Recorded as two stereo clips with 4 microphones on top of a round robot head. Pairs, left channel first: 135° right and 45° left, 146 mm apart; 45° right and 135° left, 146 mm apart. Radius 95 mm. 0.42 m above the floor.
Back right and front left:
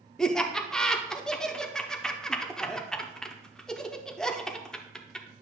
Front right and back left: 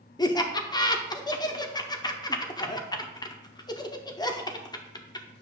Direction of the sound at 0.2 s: 50° right.